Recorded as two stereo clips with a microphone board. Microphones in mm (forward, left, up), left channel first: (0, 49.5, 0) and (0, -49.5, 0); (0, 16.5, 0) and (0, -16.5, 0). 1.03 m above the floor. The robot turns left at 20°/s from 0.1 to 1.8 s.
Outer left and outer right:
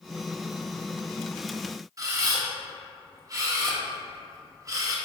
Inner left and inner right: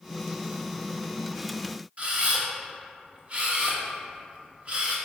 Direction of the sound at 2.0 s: 35° right (ahead or behind).